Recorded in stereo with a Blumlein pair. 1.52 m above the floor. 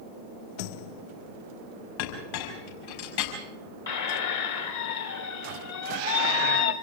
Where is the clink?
55° left, 5 m.